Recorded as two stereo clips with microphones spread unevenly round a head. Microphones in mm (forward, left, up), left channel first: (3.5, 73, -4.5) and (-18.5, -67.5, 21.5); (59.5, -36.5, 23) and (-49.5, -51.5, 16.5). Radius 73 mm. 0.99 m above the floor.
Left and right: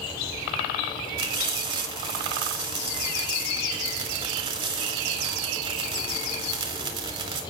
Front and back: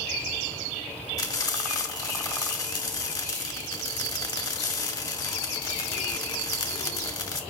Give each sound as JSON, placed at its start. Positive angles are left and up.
{"t": 1.2, "sound": "frying", "azimuth_deg": -45, "distance_m": 2.0}